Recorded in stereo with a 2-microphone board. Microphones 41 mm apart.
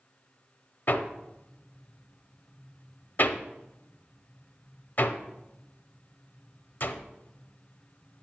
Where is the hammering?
50° left (ahead or behind), 0.6 m.